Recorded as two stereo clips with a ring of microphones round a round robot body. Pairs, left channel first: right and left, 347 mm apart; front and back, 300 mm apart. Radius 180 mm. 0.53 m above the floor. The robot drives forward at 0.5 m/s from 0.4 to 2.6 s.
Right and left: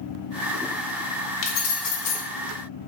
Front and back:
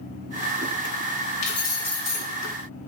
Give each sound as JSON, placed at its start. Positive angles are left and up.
{"t": 1.4, "sound": "keys jangling", "azimuth_deg": -60, "distance_m": 0.9}